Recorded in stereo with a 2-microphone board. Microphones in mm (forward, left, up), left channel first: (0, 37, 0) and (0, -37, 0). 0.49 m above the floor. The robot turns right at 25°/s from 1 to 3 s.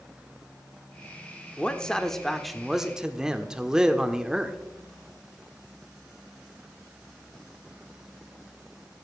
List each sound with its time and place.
1.6 s a man speaking: 160° left, 1.0 m; by 4.6 s 165° right, 1.0 m